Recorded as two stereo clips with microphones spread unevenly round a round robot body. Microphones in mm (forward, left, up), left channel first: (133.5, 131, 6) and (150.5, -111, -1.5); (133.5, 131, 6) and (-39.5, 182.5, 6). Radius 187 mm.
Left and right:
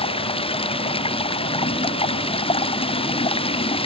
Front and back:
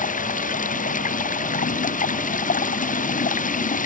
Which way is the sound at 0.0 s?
25° left.